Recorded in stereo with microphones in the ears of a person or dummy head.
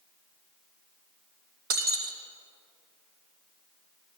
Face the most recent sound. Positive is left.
turn(degrees=-50)  # may be behind; listen again after turning